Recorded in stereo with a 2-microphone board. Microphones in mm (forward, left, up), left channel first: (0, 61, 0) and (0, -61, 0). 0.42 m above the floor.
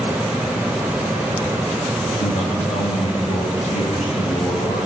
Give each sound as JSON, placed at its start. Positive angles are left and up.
{"t": 2.2, "sound": "a man speaking", "side_deg": 75, "distance_m": 7.5}